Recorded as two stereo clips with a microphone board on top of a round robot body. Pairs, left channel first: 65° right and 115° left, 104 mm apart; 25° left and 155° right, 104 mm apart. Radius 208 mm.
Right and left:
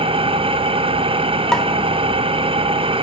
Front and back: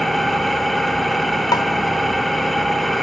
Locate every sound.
0.0 s an engine running: 110° left, 0.9 m
1.5 s a pop: 10° left, 0.7 m